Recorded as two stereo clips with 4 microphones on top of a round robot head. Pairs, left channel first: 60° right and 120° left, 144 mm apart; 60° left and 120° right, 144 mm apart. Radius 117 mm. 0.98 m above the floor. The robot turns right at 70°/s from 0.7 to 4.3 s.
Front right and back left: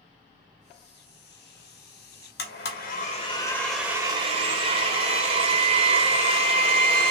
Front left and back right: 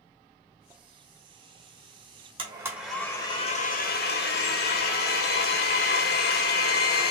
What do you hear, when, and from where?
2.4 s a blender: 65° right, 0.6 m; by 7.1 s 65° left, 0.6 m